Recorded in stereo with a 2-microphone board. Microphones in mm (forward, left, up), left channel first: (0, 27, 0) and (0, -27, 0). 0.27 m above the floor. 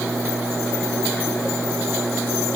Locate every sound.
Only background noise.